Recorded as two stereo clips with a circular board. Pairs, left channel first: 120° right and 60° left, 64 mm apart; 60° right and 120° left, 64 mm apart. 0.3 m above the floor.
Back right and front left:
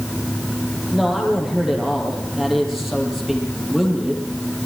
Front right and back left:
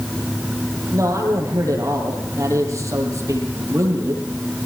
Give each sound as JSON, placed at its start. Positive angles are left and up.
{"t": 0.9, "sound": "a man speaking", "azimuth_deg": 145, "distance_m": 8.5}